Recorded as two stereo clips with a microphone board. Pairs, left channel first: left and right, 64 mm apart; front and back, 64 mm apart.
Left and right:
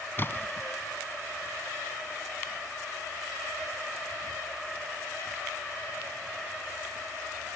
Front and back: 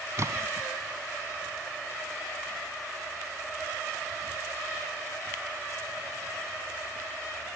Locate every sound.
0.2 s a splash: 145° left, 0.9 m